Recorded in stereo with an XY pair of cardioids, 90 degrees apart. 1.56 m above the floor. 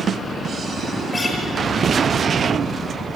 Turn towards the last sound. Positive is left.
turn(degrees=25)